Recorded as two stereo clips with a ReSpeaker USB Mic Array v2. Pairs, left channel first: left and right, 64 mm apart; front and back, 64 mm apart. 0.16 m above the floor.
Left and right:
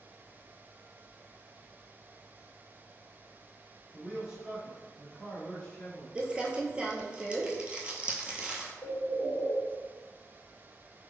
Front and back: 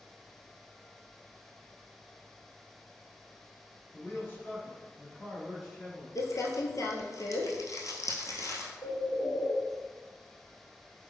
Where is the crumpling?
20° right, 0.7 m.